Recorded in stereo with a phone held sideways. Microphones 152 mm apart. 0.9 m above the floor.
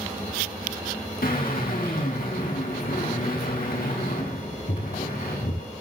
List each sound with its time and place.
1.2 s a drill: 75° left (ahead or behind), 8 m